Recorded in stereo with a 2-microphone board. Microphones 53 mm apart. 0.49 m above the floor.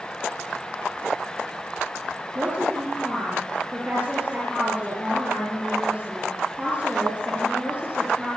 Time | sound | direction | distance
2.4 | a woman speaking | 25° right (ahead or behind) | 8.5 m